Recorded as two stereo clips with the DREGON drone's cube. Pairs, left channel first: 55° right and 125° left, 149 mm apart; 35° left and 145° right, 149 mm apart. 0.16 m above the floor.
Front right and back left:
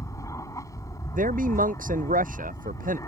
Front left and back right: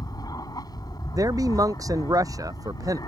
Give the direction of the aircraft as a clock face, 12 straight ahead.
12 o'clock.